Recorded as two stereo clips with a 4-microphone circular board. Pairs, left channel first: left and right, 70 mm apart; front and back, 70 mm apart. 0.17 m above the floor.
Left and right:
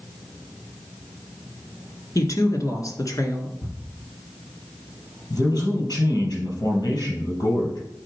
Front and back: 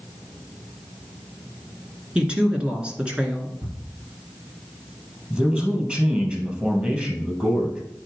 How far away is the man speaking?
About 3.5 m.